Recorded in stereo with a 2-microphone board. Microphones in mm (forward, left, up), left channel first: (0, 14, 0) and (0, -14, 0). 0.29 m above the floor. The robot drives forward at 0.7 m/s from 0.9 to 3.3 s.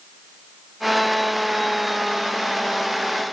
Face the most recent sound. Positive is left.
No sound to turn to.